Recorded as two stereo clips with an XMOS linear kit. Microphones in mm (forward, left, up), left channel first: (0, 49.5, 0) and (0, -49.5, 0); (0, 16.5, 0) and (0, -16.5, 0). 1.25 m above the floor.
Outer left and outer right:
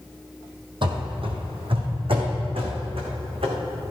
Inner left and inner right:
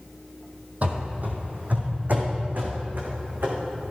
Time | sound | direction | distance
0.8 | running footsteps | 55° right (ahead or behind) | 2 m